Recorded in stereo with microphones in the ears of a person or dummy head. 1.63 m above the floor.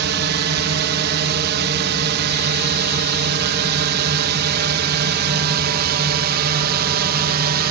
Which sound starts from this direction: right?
A drone, at 0.0 s.